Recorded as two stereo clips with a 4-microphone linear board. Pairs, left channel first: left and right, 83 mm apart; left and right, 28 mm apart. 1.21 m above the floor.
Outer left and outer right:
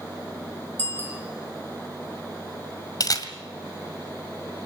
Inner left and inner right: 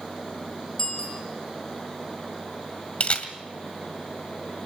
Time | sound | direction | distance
0.8 | a bicycle bell | 20° left (ahead or behind) | 5 m
3.0 | a camera shutter | 50° left (ahead or behind) | 1.8 m